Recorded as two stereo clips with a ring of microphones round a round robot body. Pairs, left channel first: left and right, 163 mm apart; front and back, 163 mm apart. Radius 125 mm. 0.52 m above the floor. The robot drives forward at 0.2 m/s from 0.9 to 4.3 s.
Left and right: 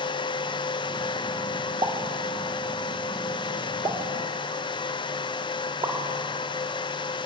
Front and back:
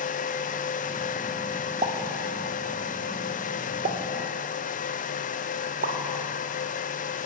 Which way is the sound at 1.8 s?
140° right.